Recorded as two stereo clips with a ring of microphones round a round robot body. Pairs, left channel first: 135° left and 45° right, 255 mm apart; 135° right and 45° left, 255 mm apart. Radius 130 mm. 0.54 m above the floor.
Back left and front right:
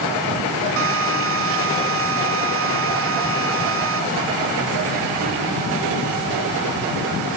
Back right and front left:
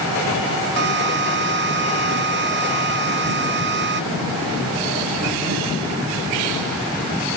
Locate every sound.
0.8 s a drill: 5° right